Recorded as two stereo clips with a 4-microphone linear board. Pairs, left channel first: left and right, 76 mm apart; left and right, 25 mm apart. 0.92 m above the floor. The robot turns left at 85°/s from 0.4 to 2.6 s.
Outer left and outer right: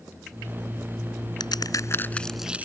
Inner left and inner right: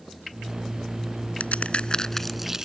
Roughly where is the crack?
Left.